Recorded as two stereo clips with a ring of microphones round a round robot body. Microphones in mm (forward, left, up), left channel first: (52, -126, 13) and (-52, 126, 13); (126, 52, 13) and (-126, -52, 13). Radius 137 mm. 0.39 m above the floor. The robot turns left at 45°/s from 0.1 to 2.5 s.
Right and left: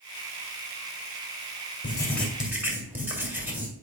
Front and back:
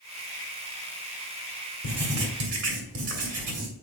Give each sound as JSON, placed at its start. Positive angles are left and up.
{"t": 1.8, "sound": "writing", "azimuth_deg": -135, "distance_m": 2.5}